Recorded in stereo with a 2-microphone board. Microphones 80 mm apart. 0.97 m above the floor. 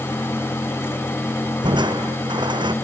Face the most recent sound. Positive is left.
turn(degrees=-65)  # may be behind; listen again after turning